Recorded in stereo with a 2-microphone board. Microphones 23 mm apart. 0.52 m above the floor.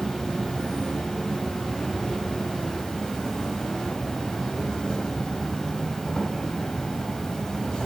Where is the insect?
40° left (ahead or behind), 2.5 m.